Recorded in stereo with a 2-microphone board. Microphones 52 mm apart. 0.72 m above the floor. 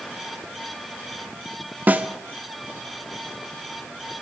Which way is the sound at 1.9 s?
35° right (ahead or behind).